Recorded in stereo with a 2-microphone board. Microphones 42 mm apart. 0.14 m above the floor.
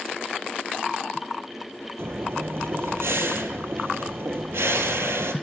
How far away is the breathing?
About 0.5 m.